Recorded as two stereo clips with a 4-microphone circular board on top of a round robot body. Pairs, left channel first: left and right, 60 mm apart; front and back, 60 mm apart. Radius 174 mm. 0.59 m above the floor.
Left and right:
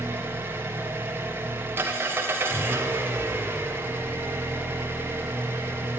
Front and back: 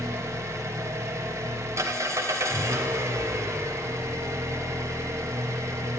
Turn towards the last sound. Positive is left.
turn(degrees=-145)